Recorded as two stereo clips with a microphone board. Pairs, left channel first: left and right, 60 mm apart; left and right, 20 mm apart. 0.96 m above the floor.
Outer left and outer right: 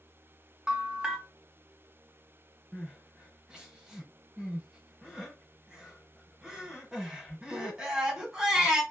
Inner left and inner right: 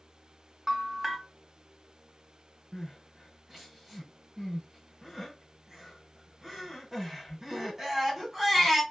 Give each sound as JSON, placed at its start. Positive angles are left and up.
{"t": 0.7, "sound": "a bell", "side_deg": -10, "distance_m": 0.8}
{"t": 2.7, "sound": "crying", "side_deg": -10, "distance_m": 1.4}